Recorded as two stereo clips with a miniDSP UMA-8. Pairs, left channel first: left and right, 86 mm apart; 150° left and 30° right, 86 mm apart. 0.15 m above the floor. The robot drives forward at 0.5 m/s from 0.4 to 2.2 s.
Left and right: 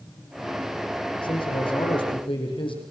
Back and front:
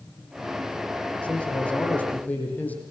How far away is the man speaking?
About 6.5 m.